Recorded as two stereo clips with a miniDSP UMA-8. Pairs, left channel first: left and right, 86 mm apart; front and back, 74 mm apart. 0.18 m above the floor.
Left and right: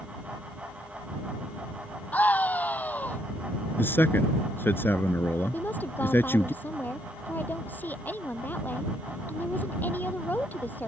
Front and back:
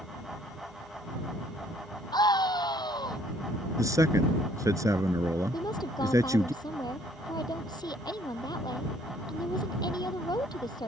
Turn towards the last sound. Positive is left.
turn(degrees=20)